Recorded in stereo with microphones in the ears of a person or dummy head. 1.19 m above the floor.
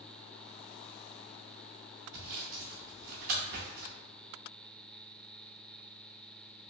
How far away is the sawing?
About 0.6 m.